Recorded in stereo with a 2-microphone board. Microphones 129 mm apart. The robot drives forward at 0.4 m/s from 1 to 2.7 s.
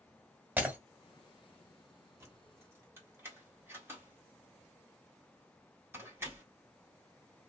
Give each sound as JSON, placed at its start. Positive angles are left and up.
{"t": 0.6, "sound": "breaking glass", "side_deg": -15, "distance_m": 1.2}
{"t": 2.2, "sound": "keys jangling", "side_deg": -20, "distance_m": 1.1}